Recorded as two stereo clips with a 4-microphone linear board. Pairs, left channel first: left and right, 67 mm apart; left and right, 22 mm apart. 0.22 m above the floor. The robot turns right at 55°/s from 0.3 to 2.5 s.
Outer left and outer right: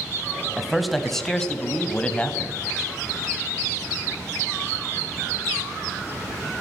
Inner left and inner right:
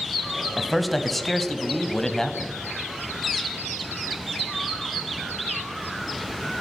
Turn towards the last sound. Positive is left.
turn(degrees=20)  # may be behind; listen again after turning